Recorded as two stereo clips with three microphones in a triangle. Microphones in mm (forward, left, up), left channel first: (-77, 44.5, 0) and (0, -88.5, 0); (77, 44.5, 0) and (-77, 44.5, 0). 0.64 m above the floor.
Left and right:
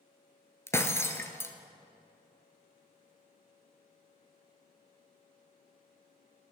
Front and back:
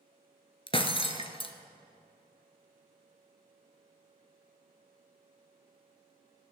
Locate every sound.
0.7 s breaking glass: 50° left, 1.1 m